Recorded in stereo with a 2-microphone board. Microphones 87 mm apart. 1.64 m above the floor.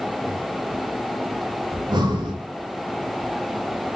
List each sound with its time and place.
1.7 s breathing: 55° right (ahead or behind), 0.8 m